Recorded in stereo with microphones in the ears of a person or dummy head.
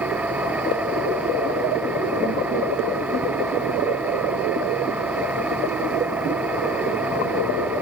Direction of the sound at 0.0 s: 10° right (ahead or behind).